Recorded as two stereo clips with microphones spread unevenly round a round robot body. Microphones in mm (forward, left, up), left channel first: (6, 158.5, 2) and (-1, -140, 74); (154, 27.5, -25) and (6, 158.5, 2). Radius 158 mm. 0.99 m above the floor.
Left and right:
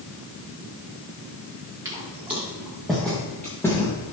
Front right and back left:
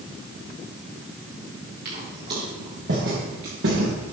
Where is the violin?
No violin in this recording.